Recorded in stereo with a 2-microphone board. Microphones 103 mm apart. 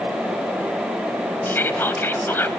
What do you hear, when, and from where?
1.4 s whispering: 20° left (ahead or behind), 1.0 m